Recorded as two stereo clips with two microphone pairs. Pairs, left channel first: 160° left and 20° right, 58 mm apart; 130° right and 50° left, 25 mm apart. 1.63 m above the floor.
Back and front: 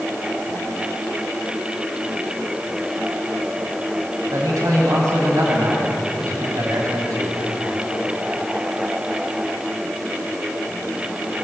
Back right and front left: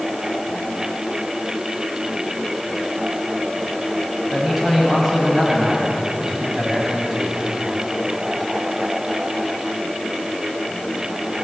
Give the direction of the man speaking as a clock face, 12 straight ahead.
1 o'clock.